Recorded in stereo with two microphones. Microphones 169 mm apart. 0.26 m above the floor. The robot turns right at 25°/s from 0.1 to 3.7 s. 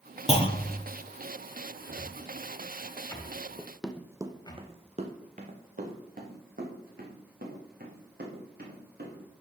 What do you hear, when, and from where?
0.3 s a clunk: 35° left (ahead or behind), 1.1 m; by 0.8 s 25° left (ahead or behind), 1.1 m
1.9 s a cupboard door: 5° left (ahead or behind), 1.4 m; by 4.6 s 25° left (ahead or behind), 1.4 m
3.6 s running footsteps: 15° left (ahead or behind), 0.6 m; by 9.2 s 60° right (ahead or behind), 4 m